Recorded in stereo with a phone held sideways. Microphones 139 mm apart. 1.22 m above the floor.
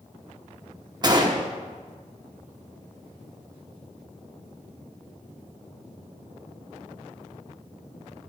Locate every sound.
1.0 s a gunshot: 30° right (ahead or behind), 0.8 m